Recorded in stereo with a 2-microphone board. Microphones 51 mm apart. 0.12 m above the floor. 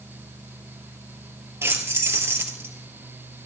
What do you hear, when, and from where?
1.6 s keys jangling: 60° right (ahead or behind), 2.0 m